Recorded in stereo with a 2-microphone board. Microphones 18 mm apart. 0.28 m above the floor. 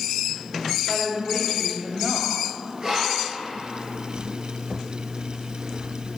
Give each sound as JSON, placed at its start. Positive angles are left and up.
{"t": 0.9, "sound": "a woman speaking", "side_deg": 15, "distance_m": 1.2}
{"t": 2.8, "sound": "breathing", "side_deg": -30, "distance_m": 2.5}